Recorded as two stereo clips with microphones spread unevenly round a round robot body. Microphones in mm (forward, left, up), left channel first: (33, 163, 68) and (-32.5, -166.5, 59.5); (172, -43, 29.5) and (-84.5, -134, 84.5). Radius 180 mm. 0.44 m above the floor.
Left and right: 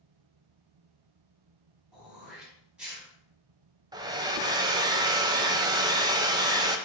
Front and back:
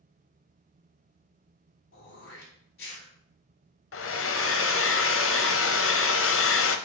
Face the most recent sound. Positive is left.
turn(degrees=-25)